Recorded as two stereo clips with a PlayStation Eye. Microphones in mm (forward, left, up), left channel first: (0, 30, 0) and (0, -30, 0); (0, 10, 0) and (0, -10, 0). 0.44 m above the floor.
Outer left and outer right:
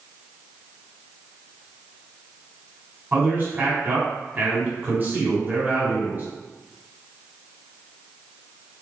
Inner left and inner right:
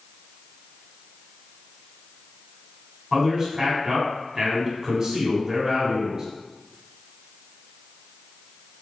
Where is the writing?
I don't hear writing.